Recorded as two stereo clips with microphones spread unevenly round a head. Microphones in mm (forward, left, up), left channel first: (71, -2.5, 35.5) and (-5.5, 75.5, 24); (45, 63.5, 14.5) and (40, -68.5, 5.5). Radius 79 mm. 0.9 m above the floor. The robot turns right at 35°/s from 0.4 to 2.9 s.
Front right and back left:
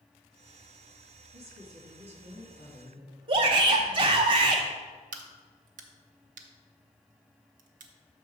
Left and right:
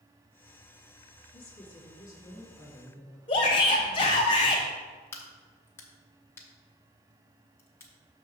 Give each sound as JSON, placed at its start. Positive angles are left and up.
{"t": 1.3, "sound": "a woman speaking", "azimuth_deg": 135, "distance_m": 2.0}
{"t": 3.3, "sound": "a shout", "azimuth_deg": 140, "distance_m": 0.7}
{"t": 5.1, "sound": "a crack", "azimuth_deg": 160, "distance_m": 0.6}